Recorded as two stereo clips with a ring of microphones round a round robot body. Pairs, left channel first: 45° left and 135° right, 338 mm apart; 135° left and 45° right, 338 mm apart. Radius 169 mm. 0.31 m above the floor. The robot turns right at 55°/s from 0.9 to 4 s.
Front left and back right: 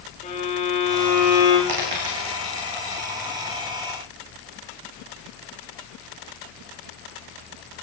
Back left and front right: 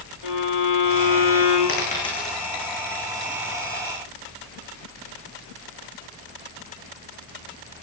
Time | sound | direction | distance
0.2 | a violin | 115° left | 9.5 m
1.7 | a dropped coin | 165° right | 8 m